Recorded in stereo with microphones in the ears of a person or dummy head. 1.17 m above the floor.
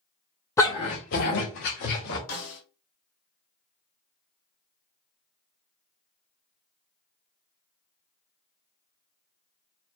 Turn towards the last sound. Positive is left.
turn(degrees=80)